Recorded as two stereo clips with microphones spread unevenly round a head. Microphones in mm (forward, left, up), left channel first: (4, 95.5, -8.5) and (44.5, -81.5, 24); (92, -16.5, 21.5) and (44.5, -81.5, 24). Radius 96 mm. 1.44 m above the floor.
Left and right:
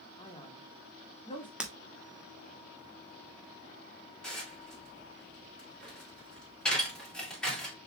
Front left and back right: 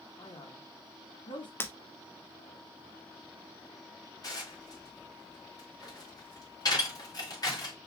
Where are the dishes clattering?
15° left, 3 m.